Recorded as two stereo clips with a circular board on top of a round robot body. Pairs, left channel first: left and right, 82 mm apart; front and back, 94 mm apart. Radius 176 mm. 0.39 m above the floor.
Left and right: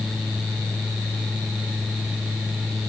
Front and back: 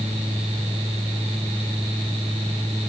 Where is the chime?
No chime in this recording.